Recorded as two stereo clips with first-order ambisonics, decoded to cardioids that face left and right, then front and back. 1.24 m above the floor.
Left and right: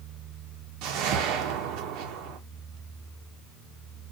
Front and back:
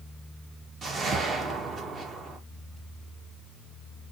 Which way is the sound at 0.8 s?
110° right.